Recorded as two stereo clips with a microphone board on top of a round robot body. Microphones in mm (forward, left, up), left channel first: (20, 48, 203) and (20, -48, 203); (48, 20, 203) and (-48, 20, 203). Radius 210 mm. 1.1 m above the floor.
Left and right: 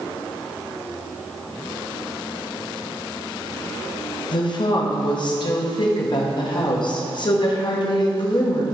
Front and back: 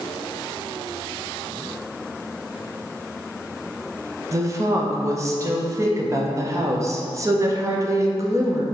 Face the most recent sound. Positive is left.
turn(degrees=125)